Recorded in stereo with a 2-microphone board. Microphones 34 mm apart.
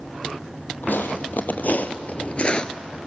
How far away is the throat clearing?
I don't hear throat clearing.